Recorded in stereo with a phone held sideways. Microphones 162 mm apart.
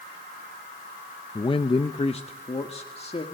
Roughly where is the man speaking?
Left.